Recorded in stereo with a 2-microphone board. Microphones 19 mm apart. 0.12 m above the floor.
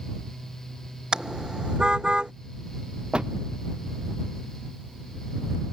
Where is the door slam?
50° right (ahead or behind).